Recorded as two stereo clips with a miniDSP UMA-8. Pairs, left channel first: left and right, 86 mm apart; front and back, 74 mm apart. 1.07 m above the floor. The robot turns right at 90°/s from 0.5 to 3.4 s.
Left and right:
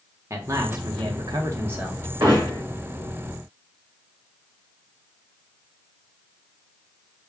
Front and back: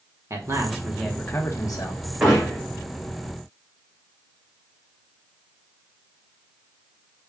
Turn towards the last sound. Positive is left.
turn(degrees=-5)